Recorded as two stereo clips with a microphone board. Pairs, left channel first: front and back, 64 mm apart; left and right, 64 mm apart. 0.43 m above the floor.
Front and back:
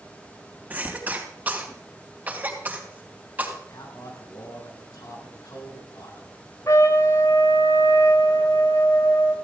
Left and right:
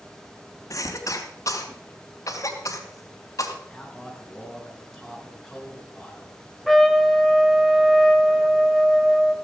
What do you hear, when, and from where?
0.7 s a cough: 120° left, 3 m
3.7 s a man speaking: straight ahead, 4 m
6.7 s a trumpet: straight ahead, 1.1 m